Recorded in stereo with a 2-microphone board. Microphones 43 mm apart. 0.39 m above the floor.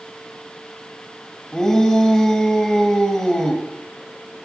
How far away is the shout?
About 2 m.